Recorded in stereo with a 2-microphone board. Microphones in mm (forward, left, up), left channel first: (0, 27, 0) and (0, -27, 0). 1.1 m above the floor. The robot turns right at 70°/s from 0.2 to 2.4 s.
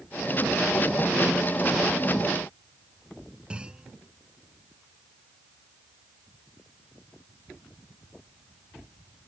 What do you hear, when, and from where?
3.5 s a clunk: 20° right (ahead or behind)